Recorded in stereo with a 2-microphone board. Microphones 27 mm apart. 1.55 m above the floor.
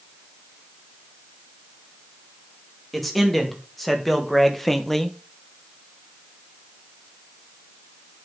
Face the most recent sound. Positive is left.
turn(degrees=10)  # may be behind; listen again after turning